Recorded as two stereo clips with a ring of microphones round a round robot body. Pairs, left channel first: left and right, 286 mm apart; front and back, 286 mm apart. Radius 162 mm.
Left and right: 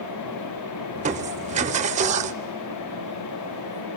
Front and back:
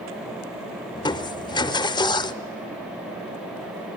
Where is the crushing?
60° right, 0.6 m.